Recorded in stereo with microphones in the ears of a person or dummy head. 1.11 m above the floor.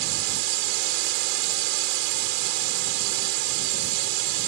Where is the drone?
70° right (ahead or behind).